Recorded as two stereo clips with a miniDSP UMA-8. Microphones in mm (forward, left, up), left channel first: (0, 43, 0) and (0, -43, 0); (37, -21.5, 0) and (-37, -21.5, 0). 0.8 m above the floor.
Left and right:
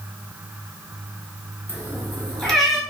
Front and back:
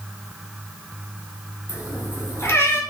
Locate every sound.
1.7 s a cat meowing: 35° left, 1.1 m; by 2.8 s 10° right, 0.8 m